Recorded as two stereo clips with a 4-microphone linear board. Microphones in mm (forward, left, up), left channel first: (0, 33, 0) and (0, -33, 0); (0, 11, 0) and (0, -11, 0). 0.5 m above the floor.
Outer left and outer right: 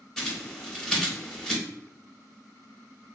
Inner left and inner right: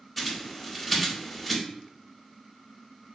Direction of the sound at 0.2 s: 5° left (ahead or behind).